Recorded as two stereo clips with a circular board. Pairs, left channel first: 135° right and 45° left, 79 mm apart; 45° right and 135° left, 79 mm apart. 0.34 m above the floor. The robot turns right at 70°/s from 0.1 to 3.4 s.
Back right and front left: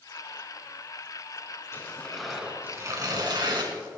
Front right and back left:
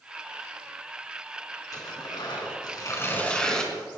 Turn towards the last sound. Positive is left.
turn(degrees=35)